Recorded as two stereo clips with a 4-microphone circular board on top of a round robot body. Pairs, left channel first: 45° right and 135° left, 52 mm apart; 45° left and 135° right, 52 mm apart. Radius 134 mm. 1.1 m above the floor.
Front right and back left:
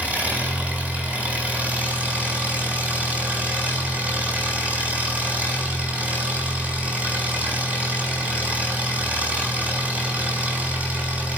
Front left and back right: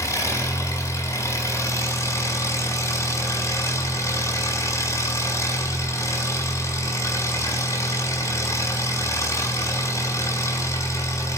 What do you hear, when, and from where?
0.0 s an engine running: 70° left, 6 m